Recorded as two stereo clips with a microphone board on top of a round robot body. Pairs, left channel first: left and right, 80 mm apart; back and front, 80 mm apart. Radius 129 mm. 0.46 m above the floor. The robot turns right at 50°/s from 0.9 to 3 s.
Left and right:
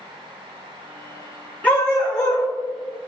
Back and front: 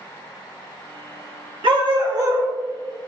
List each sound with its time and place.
1.6 s a dog barking: 20° left, 2 m; by 2.5 s 60° left, 2 m